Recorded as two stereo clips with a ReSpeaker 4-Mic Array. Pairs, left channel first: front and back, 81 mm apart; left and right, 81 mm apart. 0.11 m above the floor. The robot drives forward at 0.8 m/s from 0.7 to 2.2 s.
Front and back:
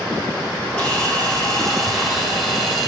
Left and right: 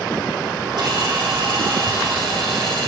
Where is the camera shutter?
70° right, 4.5 m; by 2.9 s 85° right, 4.5 m.